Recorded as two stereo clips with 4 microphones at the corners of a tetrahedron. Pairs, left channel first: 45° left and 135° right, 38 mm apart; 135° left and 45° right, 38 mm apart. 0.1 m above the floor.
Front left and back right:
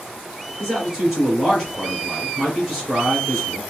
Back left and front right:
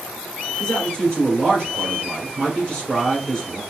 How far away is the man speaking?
About 1.7 m.